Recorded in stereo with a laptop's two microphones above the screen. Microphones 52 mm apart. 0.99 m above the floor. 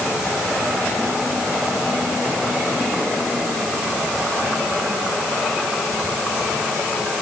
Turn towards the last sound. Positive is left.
No sound to turn to.